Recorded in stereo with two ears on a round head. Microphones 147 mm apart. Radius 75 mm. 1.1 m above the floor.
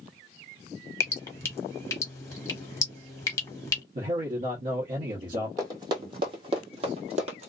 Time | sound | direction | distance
1.0 | dripping | 20° left (ahead or behind) | 0.9 m
4.0 | a man speaking | 50° right (ahead or behind) | 1.0 m
5.6 | running footsteps | 20° right (ahead or behind) | 1.5 m